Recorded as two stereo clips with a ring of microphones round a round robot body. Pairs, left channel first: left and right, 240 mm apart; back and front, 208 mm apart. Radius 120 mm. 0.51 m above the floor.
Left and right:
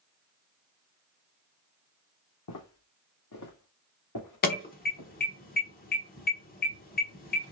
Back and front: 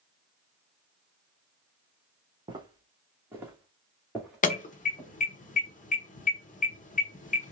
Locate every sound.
2.5 s footsteps: 65° left, 2.0 m; by 5.1 s 100° left, 2.5 m
4.4 s an alarm: 135° left, 1.1 m